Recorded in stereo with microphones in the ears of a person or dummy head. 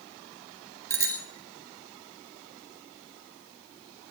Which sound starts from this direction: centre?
A bicycle bell, at 0.9 s.